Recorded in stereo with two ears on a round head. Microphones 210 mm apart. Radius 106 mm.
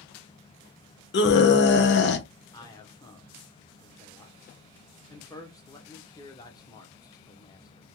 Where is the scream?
50° left (ahead or behind), 0.8 m.